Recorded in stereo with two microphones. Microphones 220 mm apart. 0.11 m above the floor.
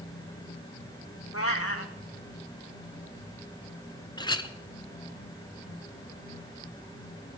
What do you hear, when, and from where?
1.3 s a cat meowing: 75° left (ahead or behind), 1.4 m
4.2 s a clink: 20° left (ahead or behind), 0.8 m